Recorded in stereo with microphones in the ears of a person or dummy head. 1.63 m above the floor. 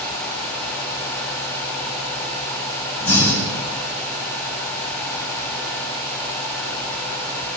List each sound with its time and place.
3.0 s breathing: 15° left (ahead or behind), 10 m